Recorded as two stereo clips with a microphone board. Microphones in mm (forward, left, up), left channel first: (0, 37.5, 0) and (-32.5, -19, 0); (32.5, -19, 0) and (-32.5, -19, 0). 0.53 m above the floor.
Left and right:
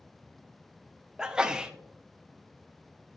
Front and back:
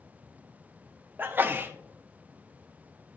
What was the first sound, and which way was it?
A sneeze, 175° left.